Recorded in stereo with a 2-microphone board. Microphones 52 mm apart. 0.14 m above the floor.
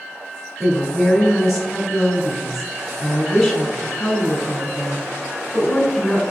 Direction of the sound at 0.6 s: Centre (ahead or behind).